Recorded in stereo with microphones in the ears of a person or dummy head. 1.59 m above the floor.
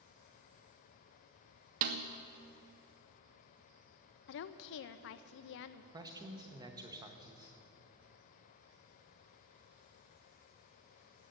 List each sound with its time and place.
1.8 s a snare drum: 35° right (ahead or behind), 0.6 m
4.3 s a woman speaking: 55° left (ahead or behind), 0.5 m
5.9 s a man speaking: 20° right (ahead or behind), 1.0 m